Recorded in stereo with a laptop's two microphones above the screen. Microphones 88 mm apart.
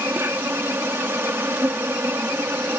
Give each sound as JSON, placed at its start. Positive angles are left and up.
{"t": 0.0, "sound": "an insect", "side_deg": -25}